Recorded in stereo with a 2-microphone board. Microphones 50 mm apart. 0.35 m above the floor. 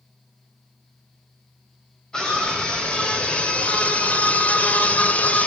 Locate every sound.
2.1 s a scream: 15° left (ahead or behind), 1.7 m; by 5.5 s 25° left (ahead or behind), 1.5 m